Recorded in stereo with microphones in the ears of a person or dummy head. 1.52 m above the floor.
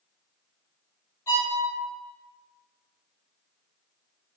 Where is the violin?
20° left (ahead or behind), 2 m.